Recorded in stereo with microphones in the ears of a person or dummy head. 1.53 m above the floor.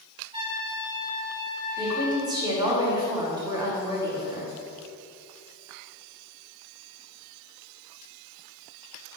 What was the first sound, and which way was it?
A trumpet, 25° right (ahead or behind).